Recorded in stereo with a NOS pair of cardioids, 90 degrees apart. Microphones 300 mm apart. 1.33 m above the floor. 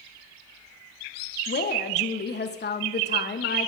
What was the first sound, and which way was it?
A woman speaking, 35° left.